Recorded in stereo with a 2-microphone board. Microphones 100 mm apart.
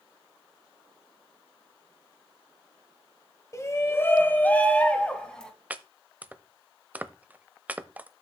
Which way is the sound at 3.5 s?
30° left (ahead or behind).